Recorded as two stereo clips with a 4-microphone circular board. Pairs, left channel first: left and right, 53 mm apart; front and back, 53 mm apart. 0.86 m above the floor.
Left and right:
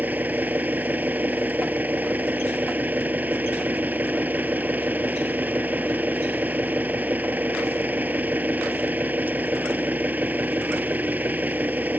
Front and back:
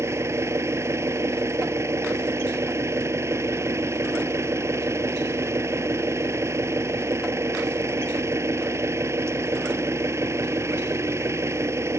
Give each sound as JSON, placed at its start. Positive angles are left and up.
{"t": 0.0, "sound": "an engine running", "azimuth_deg": -150}